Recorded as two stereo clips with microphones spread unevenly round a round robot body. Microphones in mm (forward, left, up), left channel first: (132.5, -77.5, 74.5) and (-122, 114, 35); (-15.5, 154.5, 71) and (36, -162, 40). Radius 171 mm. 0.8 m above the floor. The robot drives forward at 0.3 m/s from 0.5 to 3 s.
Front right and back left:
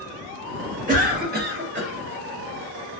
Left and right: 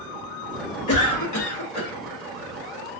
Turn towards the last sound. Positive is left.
turn(degrees=120)